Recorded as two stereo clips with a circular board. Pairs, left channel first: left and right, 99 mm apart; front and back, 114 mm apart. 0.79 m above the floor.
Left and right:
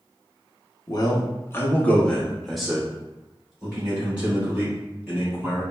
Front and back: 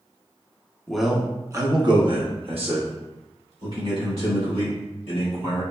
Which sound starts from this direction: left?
A man speaking, at 0.9 s.